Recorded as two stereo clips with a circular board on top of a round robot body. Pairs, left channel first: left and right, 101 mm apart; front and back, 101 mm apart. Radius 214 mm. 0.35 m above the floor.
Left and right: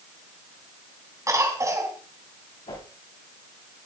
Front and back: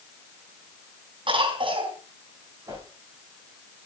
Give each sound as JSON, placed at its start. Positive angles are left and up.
{"t": 1.3, "sound": "a cough", "azimuth_deg": -150, "distance_m": 3.5}
{"t": 2.7, "sound": "a whoosh", "azimuth_deg": 120, "distance_m": 6.5}